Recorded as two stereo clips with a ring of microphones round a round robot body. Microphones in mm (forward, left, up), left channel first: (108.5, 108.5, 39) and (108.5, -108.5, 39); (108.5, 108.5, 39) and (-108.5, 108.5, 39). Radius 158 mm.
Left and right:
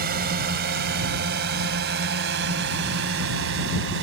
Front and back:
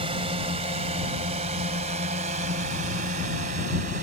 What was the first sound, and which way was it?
A drone, 120° right.